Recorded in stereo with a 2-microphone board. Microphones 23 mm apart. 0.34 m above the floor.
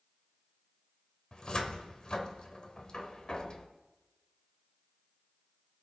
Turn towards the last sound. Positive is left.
turn(degrees=35)  # may be behind; listen again after turning